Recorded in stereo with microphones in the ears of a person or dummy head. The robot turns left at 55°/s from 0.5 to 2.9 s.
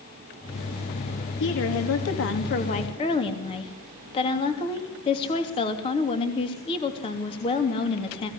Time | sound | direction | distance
1.4 | a woman speaking | 110° left | 2.5 m